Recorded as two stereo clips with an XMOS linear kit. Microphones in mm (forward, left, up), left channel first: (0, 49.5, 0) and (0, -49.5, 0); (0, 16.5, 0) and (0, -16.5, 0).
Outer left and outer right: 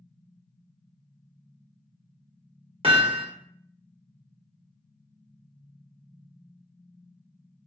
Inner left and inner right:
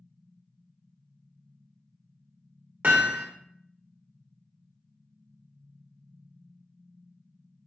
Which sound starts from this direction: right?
Hammering, at 2.8 s.